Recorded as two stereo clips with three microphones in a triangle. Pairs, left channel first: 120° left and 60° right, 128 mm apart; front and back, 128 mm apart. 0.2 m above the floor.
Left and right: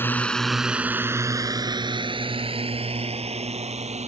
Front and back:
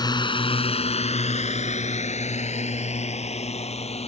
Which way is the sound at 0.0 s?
50° left.